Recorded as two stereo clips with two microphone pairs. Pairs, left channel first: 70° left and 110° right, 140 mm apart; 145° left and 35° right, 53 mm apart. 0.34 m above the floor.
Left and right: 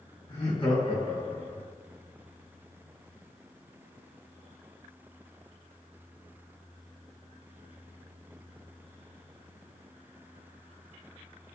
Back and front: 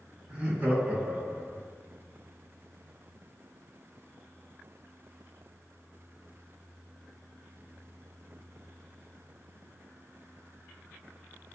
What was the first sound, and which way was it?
Laughter, 35° left.